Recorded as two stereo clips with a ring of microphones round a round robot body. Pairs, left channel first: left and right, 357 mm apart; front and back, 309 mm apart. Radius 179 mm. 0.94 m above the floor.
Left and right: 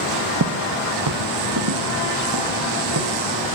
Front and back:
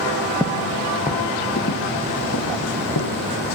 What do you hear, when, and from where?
0.4 s footsteps: 100° right, 1.1 m; by 3.2 s 45° right, 3 m